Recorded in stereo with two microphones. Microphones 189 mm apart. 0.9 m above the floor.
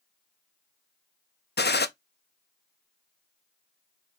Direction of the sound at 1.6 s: 60° left (ahead or behind).